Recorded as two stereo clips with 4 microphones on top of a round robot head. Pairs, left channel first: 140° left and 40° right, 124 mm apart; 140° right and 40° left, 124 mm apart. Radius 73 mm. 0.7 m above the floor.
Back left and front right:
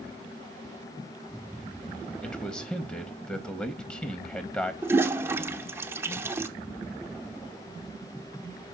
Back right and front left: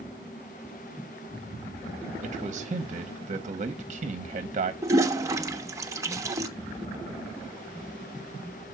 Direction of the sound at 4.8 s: 5° left.